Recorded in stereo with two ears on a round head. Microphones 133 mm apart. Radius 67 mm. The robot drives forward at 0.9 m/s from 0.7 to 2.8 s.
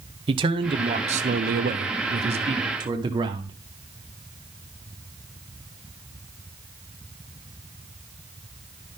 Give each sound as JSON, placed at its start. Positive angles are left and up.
{"t": 0.3, "sound": "a man speaking", "side_deg": -35, "distance_m": 1.1}